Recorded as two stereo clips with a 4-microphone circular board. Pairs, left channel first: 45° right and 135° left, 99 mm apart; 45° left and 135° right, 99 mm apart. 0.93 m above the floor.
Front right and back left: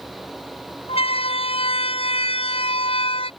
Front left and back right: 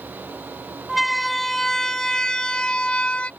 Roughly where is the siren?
Ahead right.